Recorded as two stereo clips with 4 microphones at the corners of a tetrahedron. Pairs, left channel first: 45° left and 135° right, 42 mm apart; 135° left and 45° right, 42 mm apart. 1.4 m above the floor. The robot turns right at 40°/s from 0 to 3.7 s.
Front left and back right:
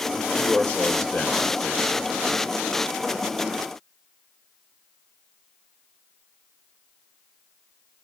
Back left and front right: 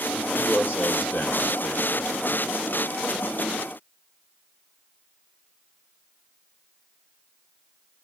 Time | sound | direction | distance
0.1 | a man speaking | 70° left | 2 m